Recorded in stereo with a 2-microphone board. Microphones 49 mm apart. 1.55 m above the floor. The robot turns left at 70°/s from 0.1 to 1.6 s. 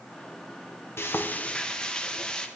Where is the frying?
65° left, 0.7 m; by 2.5 s 20° left, 0.7 m.